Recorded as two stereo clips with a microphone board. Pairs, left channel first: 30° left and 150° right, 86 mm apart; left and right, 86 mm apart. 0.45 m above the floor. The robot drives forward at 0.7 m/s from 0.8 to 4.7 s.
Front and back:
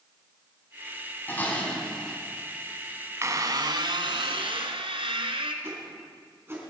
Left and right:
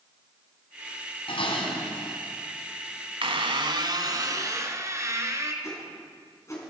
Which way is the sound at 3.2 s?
95° right.